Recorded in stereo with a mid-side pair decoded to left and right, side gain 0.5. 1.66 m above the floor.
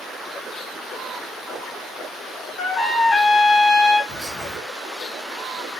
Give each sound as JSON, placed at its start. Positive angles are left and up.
{"t": 2.6, "sound": "a trumpet", "azimuth_deg": 60, "distance_m": 1.7}
{"t": 4.1, "sound": "whispering", "azimuth_deg": -10, "distance_m": 1.0}